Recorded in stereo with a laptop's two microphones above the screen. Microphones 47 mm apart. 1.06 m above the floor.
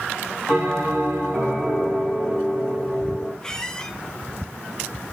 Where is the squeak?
15° left (ahead or behind), 0.9 m.